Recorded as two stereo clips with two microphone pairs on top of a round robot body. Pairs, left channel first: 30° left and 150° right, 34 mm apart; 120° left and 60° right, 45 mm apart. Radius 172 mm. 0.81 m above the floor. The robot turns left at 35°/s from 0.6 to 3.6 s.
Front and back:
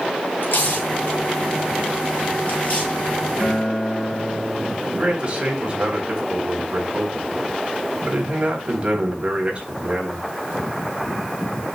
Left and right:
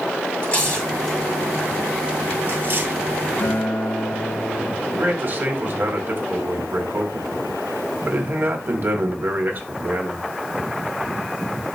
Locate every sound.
0.4 s tearing paper: 50° left, 8 m; by 3.0 s 30° right, 8 m
3.4 s a guitar: 95° left, 1.9 m; by 4.7 s 85° left, 1.9 m
4.8 s a man speaking: 90° right, 4 m